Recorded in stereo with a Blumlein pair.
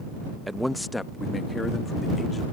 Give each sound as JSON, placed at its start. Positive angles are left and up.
{"t": 0.5, "sound": "a man speaking", "azimuth_deg": -5}